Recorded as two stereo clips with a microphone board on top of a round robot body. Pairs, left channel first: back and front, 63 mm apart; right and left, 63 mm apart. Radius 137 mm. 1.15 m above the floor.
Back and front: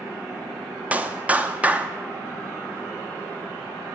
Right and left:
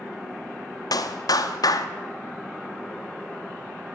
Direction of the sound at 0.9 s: 65° right.